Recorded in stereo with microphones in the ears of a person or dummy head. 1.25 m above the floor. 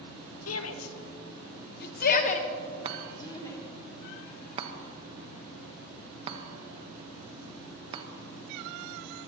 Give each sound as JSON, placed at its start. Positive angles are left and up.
{"t": 0.5, "sound": "a shout", "side_deg": 80, "distance_m": 1.3}
{"t": 2.9, "sound": "a chime", "side_deg": -35, "distance_m": 1.1}